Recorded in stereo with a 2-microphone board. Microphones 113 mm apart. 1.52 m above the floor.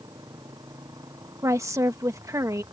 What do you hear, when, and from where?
0.0 s a motorcycle: 35° right (ahead or behind)
1.4 s a woman speaking: 30° right (ahead or behind)